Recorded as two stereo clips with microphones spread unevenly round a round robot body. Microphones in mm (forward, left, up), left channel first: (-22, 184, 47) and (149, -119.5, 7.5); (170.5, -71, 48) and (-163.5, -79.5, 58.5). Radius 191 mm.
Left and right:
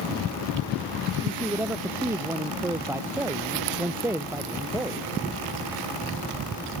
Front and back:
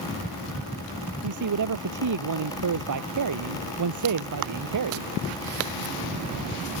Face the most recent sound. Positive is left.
turn(degrees=-145)